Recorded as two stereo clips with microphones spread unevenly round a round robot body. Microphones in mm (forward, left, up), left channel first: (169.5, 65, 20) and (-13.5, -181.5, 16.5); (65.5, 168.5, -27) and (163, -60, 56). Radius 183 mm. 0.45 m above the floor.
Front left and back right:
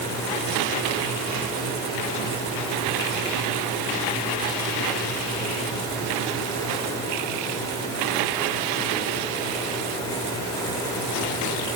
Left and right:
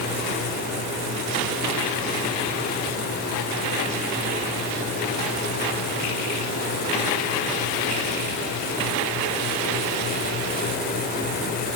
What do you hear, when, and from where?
Only background noise.